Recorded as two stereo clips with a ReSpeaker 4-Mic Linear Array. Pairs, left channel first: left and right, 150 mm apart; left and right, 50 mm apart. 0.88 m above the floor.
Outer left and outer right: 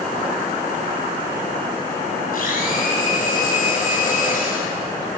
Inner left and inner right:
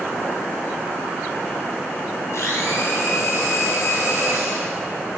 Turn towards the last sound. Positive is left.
turn(degrees=70)  # may be behind; listen again after turning